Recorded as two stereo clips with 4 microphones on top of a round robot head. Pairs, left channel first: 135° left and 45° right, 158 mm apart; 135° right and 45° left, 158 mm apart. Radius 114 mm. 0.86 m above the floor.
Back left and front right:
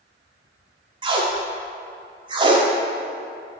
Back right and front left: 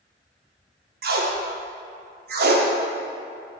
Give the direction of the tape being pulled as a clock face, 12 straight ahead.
11 o'clock.